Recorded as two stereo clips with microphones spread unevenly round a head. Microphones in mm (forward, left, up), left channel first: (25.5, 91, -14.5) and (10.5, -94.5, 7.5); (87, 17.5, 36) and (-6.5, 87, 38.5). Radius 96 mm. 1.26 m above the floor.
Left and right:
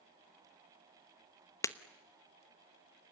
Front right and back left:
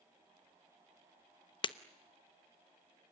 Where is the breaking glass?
10° left, 1.0 m.